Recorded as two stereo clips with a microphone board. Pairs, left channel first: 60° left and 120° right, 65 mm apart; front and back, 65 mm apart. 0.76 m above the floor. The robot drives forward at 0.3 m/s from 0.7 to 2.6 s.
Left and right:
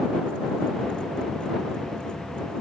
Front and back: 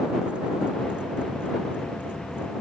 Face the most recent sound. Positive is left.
No sound to turn to.